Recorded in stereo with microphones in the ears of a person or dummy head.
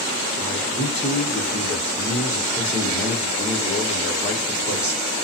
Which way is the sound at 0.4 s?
15° left (ahead or behind).